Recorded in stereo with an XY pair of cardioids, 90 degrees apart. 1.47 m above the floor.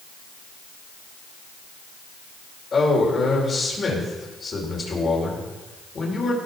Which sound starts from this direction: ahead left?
A man speaking, at 2.7 s.